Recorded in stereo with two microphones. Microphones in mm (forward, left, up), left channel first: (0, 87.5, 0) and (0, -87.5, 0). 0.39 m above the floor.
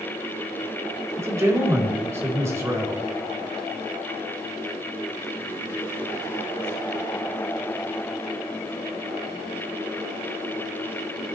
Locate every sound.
1.2 s a man speaking: 15° right (ahead or behind), 1.9 m